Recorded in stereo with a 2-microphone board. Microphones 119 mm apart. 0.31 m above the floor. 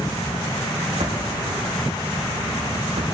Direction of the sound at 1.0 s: 65° right (ahead or behind).